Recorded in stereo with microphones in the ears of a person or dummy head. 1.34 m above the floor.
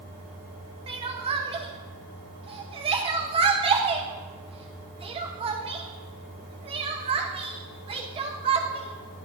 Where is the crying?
25° right (ahead or behind), 0.7 m.